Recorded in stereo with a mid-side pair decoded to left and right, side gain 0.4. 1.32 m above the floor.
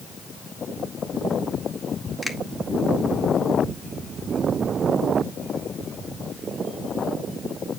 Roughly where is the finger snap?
Ahead.